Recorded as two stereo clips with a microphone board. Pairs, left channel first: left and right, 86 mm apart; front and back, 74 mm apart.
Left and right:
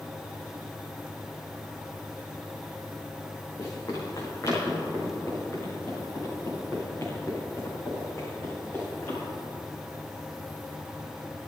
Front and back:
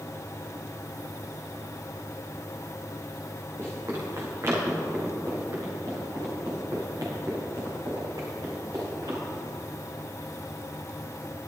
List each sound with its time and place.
3.6 s running footsteps: 135° left, 5 m; by 9.2 s 155° left, 8 m